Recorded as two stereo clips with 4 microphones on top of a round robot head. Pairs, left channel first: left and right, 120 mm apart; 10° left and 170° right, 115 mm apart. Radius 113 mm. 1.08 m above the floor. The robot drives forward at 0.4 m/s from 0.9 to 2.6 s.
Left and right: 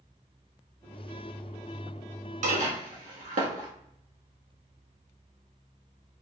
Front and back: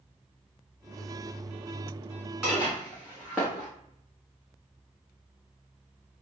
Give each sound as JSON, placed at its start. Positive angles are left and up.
{"t": 2.4, "sound": "dishes clattering", "azimuth_deg": -85, "distance_m": 1.1}